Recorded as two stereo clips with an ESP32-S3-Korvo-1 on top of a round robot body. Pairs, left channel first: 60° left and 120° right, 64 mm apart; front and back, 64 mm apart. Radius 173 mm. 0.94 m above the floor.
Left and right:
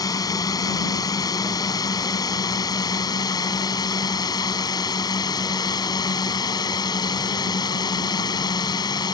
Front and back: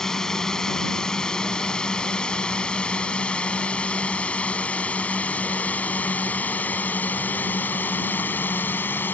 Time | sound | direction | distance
0.0 | a drone | 85° left | ?